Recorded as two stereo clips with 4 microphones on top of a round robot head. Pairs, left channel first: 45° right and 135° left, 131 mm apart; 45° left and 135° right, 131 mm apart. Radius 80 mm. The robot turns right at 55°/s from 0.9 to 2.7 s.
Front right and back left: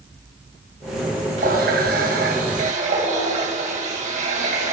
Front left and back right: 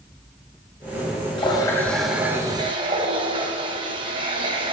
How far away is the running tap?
About 3.5 m.